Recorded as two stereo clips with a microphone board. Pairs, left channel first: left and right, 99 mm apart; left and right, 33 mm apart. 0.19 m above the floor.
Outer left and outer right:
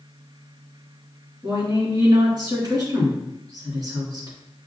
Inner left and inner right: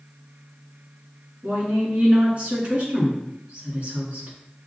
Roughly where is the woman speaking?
Right.